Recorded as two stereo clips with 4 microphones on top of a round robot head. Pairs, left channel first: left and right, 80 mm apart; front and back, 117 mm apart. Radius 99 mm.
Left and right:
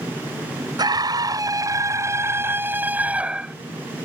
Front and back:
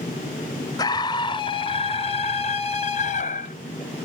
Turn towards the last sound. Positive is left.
turn(degrees=-10)